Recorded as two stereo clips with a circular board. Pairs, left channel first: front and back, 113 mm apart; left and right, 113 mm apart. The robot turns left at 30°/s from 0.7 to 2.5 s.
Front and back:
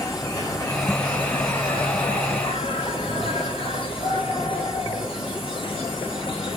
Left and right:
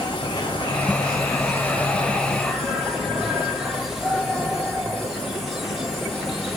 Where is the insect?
50° left, 1.3 m; by 6.6 s straight ahead, 1.3 m.